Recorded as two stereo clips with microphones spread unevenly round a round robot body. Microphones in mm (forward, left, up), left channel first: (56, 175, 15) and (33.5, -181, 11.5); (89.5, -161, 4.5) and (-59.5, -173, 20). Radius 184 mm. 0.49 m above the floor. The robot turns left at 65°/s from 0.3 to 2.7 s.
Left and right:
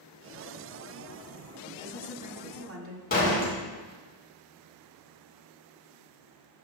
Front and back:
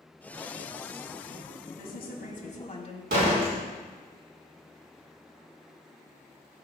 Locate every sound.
1.7 s a woman speaking: 25° left, 3 m; by 3.0 s 40° right, 3 m
3.1 s a door slam: 155° left, 3 m